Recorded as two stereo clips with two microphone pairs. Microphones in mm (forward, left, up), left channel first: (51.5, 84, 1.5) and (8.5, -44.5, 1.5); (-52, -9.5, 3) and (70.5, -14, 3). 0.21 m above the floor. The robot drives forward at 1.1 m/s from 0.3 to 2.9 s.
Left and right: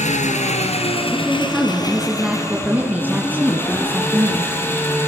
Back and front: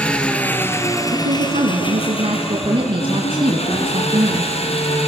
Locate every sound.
0.0 s an engine running: 95° left, 2.5 m; by 5.1 s 145° left, 4 m
1.1 s a woman speaking: 15° right, 3.5 m; by 4.5 s 35° right, 2 m